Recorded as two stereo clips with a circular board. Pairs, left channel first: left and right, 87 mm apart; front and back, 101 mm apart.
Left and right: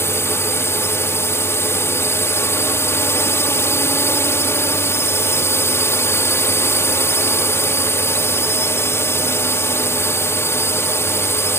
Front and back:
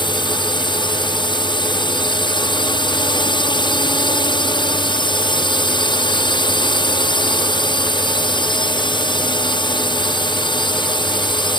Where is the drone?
30° left.